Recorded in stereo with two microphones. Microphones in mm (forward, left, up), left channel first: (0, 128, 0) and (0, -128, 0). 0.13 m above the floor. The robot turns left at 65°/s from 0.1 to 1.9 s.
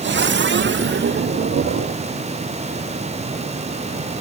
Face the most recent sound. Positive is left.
No sound to turn to.